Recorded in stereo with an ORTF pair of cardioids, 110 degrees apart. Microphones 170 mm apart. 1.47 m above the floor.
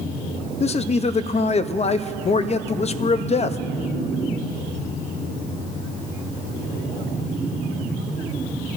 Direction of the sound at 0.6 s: 40° left.